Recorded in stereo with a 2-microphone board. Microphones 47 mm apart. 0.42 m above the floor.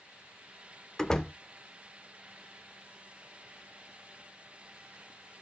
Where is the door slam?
15° left (ahead or behind), 0.5 m.